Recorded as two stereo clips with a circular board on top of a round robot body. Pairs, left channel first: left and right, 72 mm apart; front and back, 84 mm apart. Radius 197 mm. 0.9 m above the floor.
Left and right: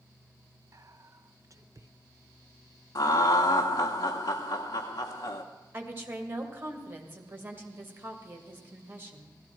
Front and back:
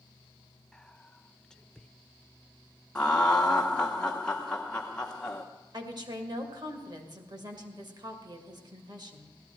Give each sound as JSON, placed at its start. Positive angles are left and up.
{"t": 0.7, "sound": "whispering", "azimuth_deg": -80, "distance_m": 0.9}
{"t": 3.0, "sound": "laughter", "azimuth_deg": 80, "distance_m": 0.9}
{"t": 5.7, "sound": "a woman speaking", "azimuth_deg": -150, "distance_m": 2.0}